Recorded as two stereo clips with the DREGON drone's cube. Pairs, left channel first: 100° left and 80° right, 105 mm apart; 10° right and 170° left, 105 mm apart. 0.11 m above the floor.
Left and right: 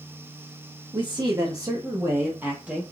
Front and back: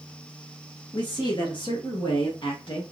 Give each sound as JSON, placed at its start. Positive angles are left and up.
{"t": 0.9, "sound": "a man speaking", "azimuth_deg": -50, "distance_m": 1.9}